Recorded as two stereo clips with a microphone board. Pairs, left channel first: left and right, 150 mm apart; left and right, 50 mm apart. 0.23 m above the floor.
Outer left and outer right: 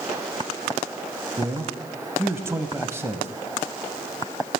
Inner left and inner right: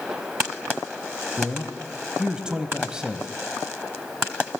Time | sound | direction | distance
1.4 | a man speaking | 15° right (ahead or behind) | 0.9 m